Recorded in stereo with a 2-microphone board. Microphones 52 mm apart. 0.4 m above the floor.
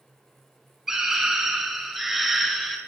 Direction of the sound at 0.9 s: 10° right (ahead or behind).